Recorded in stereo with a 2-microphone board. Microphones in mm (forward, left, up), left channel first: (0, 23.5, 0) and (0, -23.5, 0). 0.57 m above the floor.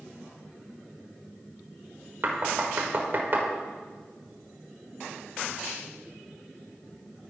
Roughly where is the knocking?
Right.